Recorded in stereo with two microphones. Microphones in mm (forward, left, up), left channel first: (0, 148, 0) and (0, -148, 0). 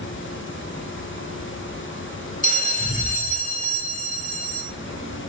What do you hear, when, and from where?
2.4 s a bell: 25° left (ahead or behind), 1.0 m